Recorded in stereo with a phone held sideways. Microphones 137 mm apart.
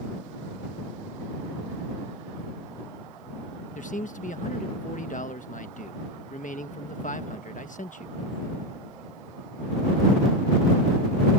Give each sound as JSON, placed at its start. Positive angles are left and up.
{"t": 3.8, "sound": "a man speaking", "side_deg": 70}